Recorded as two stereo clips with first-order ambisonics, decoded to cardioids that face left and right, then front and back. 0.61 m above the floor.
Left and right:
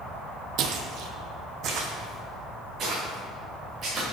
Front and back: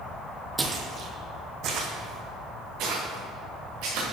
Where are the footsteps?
105° right, 0.8 m; by 4.0 s 150° right, 3 m.